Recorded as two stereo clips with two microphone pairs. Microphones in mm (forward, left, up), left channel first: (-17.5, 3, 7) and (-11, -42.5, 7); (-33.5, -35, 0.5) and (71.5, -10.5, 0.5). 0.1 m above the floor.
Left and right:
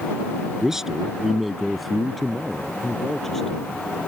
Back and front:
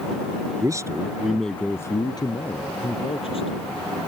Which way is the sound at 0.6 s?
10° right.